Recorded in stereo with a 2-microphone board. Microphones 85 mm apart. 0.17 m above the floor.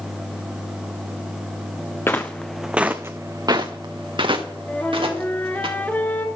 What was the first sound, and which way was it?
Footsteps, 25° left (ahead or behind).